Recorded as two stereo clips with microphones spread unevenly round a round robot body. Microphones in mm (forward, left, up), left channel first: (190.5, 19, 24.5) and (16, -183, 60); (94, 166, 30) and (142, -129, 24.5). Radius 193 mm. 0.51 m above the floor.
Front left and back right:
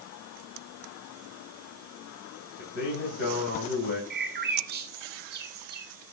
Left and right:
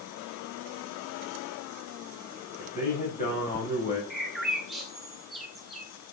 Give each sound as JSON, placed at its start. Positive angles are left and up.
{"t": 2.6, "sound": "a man speaking", "azimuth_deg": 35, "distance_m": 4.0}
{"t": 4.1, "sound": "a bird", "azimuth_deg": -170, "distance_m": 1.2}